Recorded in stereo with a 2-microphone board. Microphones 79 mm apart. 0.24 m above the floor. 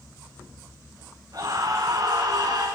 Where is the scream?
50° right (ahead or behind), 3 m; by 2.7 s 60° right (ahead or behind), 3.5 m.